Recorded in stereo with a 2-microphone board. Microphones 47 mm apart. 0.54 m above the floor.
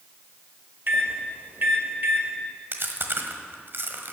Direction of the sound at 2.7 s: 50° right (ahead or behind).